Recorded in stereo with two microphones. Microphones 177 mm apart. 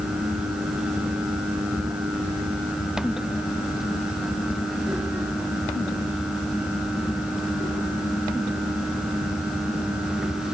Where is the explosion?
I don't hear an explosion.